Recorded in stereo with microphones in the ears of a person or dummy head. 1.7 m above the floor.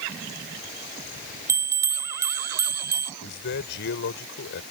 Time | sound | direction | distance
1.5 | a bell | 15° right (ahead or behind) | ?
3.2 | a man speaking | 65° left (ahead or behind) | ?